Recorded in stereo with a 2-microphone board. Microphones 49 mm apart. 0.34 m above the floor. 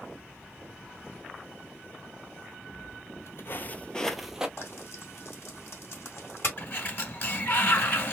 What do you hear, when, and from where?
2.7 s footsteps: 75° left (ahead or behind), 0.9 m; by 4.5 s 15° right (ahead or behind), 0.7 m
4.6 s frying: 55° left (ahead or behind), 2 m
6.6 s a sliding door: 45° left (ahead or behind), 1.4 m